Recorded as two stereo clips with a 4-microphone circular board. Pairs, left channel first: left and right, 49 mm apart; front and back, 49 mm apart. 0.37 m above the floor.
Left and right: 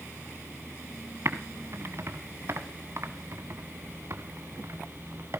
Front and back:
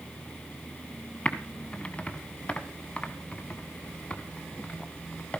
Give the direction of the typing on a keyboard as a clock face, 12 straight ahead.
2 o'clock.